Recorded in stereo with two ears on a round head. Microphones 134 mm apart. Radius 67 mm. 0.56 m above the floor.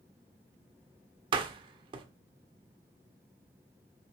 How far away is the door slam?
About 1.4 m.